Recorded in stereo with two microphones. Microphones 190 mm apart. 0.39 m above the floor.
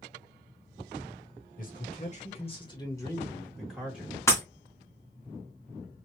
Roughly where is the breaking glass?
Centre.